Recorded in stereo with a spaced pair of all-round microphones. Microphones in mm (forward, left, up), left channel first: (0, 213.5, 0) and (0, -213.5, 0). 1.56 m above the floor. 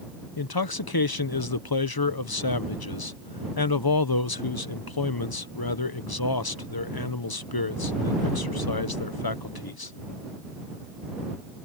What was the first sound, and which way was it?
A man speaking, 55° left (ahead or behind).